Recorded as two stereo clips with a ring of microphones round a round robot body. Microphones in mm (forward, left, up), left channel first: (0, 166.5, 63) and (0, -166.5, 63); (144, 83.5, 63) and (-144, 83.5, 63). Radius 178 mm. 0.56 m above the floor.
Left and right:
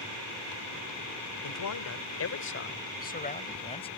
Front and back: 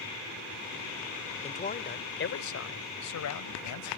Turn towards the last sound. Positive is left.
turn(degrees=15)